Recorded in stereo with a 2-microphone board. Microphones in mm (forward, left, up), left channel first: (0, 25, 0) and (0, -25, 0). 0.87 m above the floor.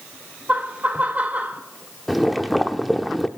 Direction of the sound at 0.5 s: 35° right (ahead or behind).